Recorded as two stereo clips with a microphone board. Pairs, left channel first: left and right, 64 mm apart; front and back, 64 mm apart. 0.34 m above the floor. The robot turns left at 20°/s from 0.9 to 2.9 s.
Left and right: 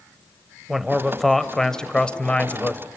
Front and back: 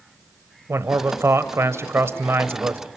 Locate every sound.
0.7 s a man speaking: 175° right, 1.1 m; by 2.9 s 145° left, 1.1 m